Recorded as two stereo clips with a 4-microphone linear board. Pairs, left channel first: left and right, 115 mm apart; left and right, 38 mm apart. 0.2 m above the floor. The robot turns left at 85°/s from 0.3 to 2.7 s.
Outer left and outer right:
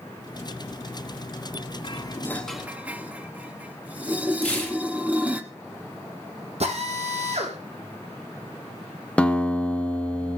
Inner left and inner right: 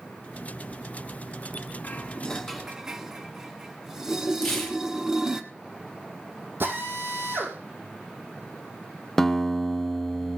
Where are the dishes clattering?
45° left (ahead or behind), 1.2 m; by 5.4 s 10° right (ahead or behind), 1.2 m.